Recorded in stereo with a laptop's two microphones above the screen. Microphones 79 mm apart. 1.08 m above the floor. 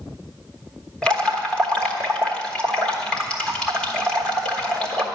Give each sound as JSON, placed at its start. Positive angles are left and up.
{"t": 1.0, "sound": "dripping", "side_deg": 10, "distance_m": 1.3}